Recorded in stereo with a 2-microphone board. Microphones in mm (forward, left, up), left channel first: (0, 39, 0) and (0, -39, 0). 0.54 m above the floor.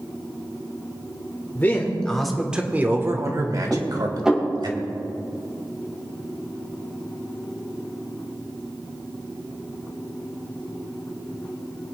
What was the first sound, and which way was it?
A man speaking, 25° left (ahead or behind).